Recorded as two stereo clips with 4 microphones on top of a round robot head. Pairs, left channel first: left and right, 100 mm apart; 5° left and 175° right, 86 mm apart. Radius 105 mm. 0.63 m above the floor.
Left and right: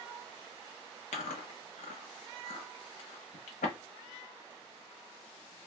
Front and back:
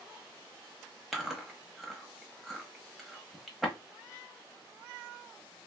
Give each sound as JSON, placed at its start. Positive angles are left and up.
{"t": 1.1, "sound": "chewing", "azimuth_deg": 100, "distance_m": 0.7}